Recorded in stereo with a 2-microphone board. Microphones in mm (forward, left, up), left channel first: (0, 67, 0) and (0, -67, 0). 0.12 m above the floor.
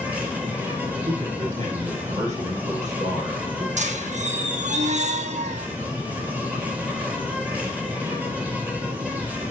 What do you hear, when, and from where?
0.0 s an insect: 10° right (ahead or behind), 3 m
1.1 s a man speaking: 65° right (ahead or behind), 5.5 m
3.8 s a squeak: 65° right (ahead or behind), 1.0 m